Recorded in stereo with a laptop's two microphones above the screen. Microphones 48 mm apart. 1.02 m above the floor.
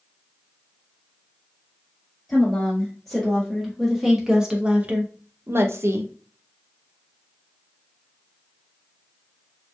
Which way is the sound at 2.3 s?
10° left (ahead or behind).